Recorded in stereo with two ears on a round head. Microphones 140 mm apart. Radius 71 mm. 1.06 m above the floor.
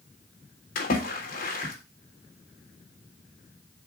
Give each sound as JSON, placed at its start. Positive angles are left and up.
{"t": 0.8, "sound": "a splash", "side_deg": 65, "distance_m": 3.5}